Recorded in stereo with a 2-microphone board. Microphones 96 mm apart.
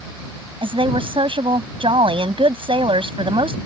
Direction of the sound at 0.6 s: 65° right (ahead or behind).